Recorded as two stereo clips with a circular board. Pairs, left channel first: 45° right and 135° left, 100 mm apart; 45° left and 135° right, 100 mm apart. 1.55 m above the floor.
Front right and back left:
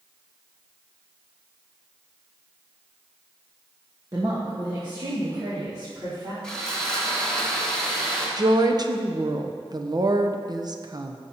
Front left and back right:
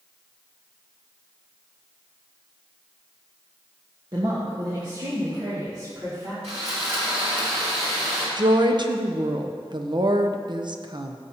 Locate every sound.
4.1 s a woman speaking: 175° right, 1.3 m; by 6.3 s 175° left, 3.5 m
6.4 s sawing: 125° right, 2.5 m
8.4 s a woman speaking: 175° right, 0.7 m